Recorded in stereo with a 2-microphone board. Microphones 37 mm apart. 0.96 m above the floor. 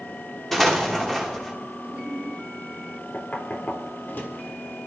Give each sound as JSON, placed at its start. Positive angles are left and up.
{"t": 0.5, "sound": "an explosion", "side_deg": 5, "distance_m": 1.9}
{"t": 1.8, "sound": "a giggle", "side_deg": -40, "distance_m": 2.0}
{"t": 3.1, "sound": "knocking", "side_deg": 55, "distance_m": 1.6}